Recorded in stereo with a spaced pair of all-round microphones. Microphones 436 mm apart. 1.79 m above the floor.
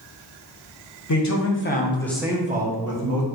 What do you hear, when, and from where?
1.1 s a man speaking: 45° left (ahead or behind), 0.8 m; by 3.3 s 45° right (ahead or behind), 0.8 m